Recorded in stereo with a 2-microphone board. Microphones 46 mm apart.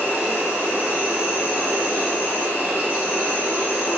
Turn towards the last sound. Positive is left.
turn(degrees=-30)  # may be behind; listen again after turning